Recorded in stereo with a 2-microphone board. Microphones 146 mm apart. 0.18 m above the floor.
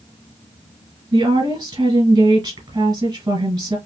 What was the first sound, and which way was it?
A woman speaking, 25° right (ahead or behind).